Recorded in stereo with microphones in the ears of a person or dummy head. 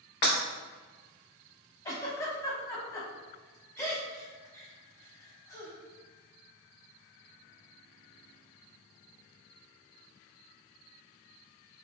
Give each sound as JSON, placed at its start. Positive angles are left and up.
{"t": 0.2, "sound": "breaking glass", "side_deg": 35, "distance_m": 0.8}
{"t": 1.9, "sound": "a giggle", "side_deg": 15, "distance_m": 0.7}